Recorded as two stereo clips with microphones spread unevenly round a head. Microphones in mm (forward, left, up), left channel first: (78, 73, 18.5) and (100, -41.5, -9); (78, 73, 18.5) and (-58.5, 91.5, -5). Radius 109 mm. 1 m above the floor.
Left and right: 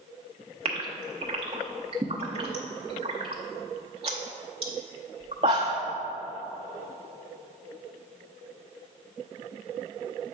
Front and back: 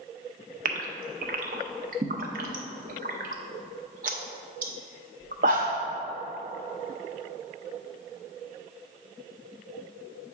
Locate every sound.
0.7 s a gasp: 145° right, 0.5 m